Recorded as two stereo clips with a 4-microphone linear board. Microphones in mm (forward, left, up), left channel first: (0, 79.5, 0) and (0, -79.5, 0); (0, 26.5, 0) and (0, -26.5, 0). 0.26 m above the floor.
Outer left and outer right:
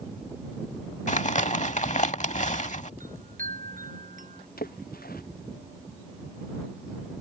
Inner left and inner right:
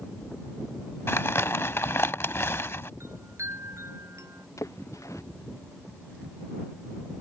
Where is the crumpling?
50° left (ahead or behind).